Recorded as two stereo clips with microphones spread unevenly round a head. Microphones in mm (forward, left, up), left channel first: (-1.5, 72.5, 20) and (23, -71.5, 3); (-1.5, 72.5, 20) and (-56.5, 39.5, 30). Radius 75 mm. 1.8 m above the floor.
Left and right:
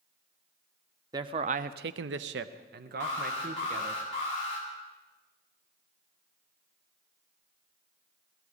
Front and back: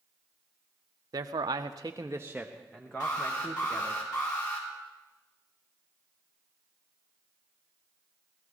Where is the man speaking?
150° right, 0.7 m; by 4.0 s 40° right, 1.8 m.